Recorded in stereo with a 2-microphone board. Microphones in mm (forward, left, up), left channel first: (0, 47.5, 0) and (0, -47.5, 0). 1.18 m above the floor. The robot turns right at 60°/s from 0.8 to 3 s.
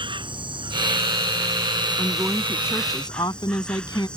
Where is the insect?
120° right; by 4.2 s 10° left.